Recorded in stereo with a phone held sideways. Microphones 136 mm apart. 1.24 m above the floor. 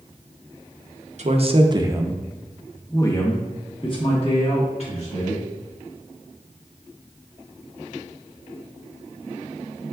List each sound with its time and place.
1.2 s a man speaking: 55° right (ahead or behind), 0.7 m; by 5.5 s 50° left (ahead or behind), 1.9 m